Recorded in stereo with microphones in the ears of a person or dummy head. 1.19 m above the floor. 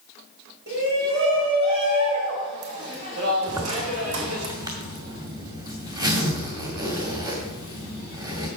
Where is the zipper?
20° right (ahead or behind), 2 m.